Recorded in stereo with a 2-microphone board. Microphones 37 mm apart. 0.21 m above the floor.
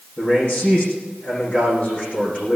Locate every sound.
0.2 s a man speaking: 40° left (ahead or behind), 9 m